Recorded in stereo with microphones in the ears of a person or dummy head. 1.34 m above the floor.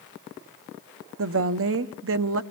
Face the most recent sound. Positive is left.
turn(degrees=-65)  # may be behind; listen again after turning